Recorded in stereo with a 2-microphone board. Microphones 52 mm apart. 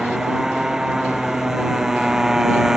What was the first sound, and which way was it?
A motorcycle, 10° right (ahead or behind).